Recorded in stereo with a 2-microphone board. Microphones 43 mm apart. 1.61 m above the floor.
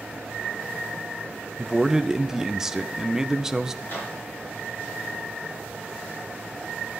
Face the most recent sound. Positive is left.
turn(degrees=50)  # may be behind; listen again after turning